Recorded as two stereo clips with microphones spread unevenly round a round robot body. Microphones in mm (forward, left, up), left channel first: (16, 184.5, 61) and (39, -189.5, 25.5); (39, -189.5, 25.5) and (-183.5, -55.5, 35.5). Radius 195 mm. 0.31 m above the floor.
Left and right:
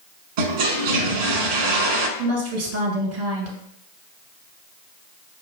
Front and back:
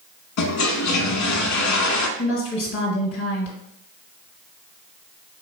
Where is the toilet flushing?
60° right, 0.8 m.